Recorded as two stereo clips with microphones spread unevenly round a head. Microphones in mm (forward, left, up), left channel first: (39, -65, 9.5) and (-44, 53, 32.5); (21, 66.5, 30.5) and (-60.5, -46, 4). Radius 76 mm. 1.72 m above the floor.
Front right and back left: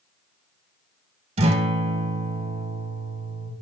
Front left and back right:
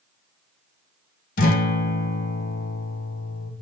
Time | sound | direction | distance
1.4 | a guitar | 75° left | 1.1 m